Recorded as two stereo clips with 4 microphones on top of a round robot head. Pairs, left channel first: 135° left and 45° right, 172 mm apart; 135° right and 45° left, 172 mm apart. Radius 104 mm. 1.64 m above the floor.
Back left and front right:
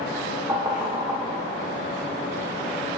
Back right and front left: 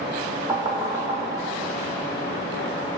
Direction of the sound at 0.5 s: 5° right.